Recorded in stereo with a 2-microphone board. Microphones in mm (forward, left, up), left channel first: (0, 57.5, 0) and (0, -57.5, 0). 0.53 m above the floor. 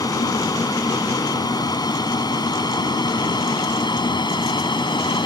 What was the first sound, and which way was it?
An aircraft, 35° left (ahead or behind).